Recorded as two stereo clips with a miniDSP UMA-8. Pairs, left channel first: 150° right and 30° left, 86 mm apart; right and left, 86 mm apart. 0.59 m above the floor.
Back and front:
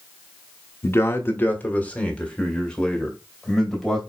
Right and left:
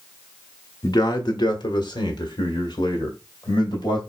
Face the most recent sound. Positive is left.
turn(degrees=-60)